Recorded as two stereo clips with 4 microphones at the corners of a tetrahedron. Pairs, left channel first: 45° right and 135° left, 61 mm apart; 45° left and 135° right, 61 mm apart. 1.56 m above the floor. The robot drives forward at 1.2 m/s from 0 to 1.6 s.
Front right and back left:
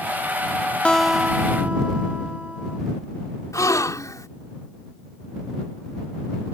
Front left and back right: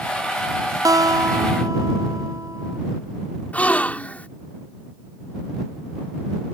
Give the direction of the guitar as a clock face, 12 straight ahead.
4 o'clock.